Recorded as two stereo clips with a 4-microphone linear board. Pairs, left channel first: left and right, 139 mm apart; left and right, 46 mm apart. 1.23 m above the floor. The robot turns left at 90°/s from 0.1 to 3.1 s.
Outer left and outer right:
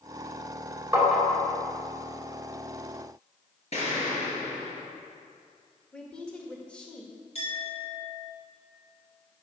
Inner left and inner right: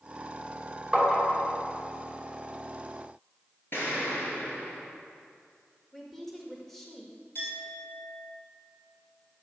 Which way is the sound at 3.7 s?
50° left (ahead or behind).